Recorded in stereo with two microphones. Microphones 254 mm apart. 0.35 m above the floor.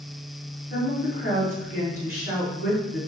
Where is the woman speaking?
30° left (ahead or behind), 1.5 m.